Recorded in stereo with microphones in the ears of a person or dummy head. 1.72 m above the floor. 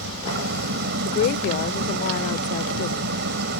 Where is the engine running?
65° right (ahead or behind).